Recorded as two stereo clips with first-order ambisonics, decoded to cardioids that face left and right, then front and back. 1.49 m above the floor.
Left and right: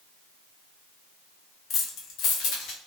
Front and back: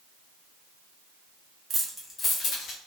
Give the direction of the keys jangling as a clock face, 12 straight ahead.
7 o'clock.